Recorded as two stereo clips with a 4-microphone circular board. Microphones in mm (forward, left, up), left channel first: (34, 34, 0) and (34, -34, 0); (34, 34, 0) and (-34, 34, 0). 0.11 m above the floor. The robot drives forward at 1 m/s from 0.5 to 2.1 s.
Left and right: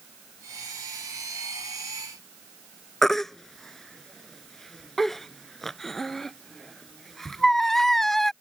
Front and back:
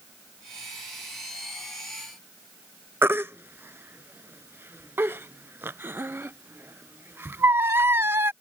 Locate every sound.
3.0 s a baby crying: 175° left